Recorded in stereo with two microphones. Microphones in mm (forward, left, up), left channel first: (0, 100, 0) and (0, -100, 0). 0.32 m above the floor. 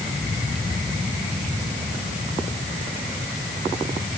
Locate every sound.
Only background noise.